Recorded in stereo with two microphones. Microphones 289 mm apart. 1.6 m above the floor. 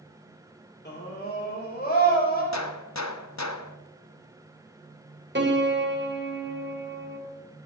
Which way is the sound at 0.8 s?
35° left (ahead or behind).